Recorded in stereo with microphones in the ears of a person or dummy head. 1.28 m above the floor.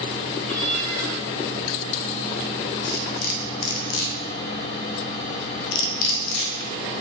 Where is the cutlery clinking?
50° left (ahead or behind), 0.6 m.